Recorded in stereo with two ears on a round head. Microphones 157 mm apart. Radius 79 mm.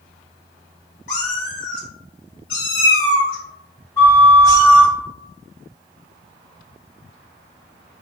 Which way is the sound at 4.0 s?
20° left (ahead or behind).